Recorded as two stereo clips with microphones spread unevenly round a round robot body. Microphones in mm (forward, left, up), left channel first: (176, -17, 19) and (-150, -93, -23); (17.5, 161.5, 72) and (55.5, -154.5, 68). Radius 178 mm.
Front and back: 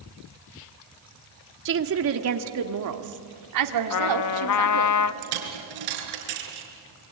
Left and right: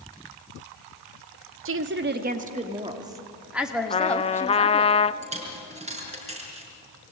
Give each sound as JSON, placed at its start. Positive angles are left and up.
{"t": 1.6, "sound": "a woman speaking", "azimuth_deg": -125, "distance_m": 1.6}
{"t": 3.9, "sound": "a trumpet", "azimuth_deg": 30, "distance_m": 0.6}
{"t": 5.2, "sound": "a dropped coin", "azimuth_deg": -155, "distance_m": 4.5}